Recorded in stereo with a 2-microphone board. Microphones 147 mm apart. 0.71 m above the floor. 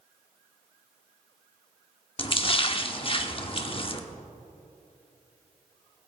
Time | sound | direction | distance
2.2 | a splash | 40° left (ahead or behind) | 0.8 m